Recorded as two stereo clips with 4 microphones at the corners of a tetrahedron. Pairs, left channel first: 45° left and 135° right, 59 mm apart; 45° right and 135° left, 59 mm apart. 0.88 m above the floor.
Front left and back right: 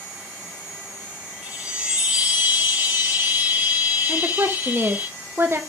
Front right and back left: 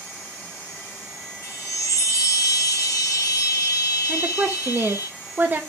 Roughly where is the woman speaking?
Behind.